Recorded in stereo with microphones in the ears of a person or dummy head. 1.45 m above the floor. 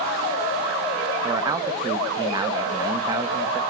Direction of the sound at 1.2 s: 20° right (ahead or behind).